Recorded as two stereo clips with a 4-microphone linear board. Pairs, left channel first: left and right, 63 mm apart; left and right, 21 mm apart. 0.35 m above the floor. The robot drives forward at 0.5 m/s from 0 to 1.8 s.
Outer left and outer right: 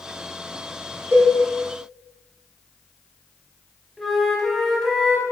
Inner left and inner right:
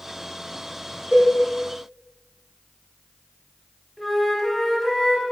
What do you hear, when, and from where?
1.1 s a cowbell: 50° right (ahead or behind), 4.5 m
4.0 s a flute: centre (ahead or behind), 1.9 m